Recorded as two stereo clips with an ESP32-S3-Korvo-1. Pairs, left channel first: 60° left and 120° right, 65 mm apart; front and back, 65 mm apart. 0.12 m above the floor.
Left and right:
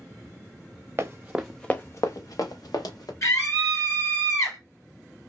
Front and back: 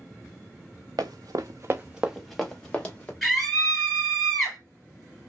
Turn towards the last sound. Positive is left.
turn(degrees=85)